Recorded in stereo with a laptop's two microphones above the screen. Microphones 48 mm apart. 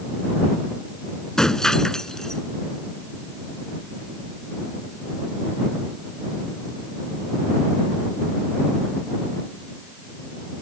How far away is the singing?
I don't hear singing.